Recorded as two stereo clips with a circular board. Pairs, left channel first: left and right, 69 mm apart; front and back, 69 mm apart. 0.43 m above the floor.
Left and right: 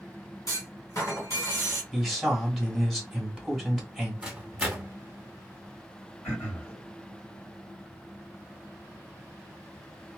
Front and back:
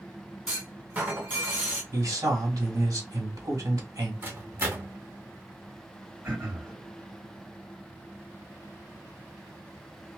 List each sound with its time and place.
0.5 s a clunk: 115° left, 1.9 m
1.9 s a man speaking: 175° left, 1.5 m
4.2 s a microwave: 160° right, 0.8 m
6.2 s throat clearing: 125° left, 2.0 m